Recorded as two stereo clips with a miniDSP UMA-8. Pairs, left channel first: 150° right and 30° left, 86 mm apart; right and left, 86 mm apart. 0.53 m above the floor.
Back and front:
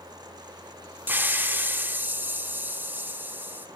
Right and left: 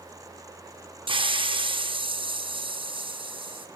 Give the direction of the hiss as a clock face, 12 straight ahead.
9 o'clock.